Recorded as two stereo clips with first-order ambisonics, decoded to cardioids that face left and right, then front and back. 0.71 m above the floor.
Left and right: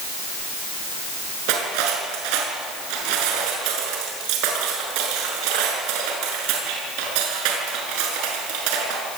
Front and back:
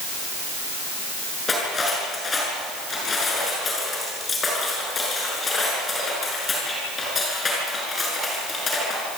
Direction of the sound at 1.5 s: 75° right.